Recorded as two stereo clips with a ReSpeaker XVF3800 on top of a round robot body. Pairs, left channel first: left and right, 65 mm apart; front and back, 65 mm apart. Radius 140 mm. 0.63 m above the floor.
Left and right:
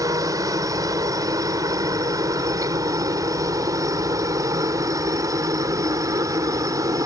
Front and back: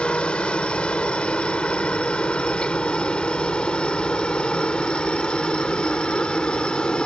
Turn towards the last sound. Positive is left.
turn(degrees=-75)